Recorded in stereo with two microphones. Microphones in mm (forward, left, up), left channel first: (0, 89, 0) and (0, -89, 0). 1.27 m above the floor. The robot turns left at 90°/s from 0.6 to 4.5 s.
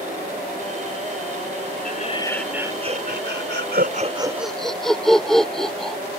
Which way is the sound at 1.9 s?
55° left.